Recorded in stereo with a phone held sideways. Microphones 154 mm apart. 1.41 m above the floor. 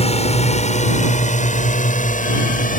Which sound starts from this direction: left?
A drone, at 0.0 s.